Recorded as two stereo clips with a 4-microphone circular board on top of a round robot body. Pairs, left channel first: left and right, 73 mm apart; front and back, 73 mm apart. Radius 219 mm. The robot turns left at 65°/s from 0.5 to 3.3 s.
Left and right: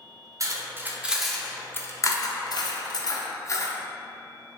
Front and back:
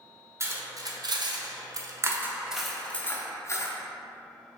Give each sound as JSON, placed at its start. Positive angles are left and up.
{"t": 0.4, "sound": "cutlery clinking", "azimuth_deg": -130, "distance_m": 0.7}